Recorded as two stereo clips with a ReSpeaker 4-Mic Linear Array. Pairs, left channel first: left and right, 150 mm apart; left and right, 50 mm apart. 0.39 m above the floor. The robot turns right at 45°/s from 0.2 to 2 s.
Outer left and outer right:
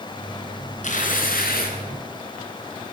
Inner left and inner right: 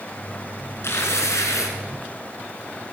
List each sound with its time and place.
0.8 s tearing paper: 55° left, 2.5 m; by 1.8 s 95° left, 2.5 m